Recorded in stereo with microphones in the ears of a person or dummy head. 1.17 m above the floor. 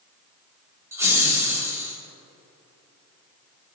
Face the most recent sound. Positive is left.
turn(degrees=-10)  # may be behind; listen again after turning